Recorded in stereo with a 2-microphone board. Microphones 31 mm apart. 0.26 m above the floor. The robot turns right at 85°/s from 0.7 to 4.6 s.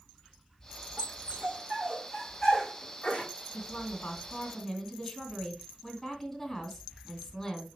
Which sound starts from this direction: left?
A woman speaking, at 3.5 s.